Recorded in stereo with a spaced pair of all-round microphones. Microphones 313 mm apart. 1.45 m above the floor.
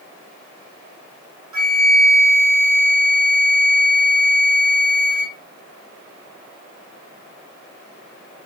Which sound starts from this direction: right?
A flute, at 1.5 s.